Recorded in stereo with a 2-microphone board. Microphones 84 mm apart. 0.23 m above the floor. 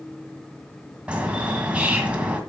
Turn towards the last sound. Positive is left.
turn(degrees=-15)  # may be behind; listen again after turning